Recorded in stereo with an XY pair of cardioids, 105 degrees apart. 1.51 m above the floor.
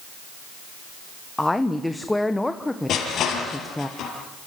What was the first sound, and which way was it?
A woman speaking, 10° left.